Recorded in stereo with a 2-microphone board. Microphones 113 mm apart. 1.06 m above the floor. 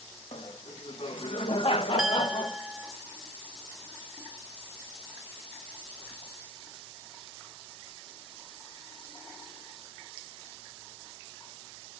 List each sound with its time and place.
0.3 s laughter: 70° left (ahead or behind), 2.0 m; by 2.6 s 45° left (ahead or behind), 0.9 m
2.0 s a clink: 5° right (ahead or behind), 0.9 m